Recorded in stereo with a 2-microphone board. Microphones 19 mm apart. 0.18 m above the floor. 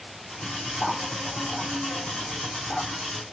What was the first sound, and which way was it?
Cutlery clinking, 55° left (ahead or behind).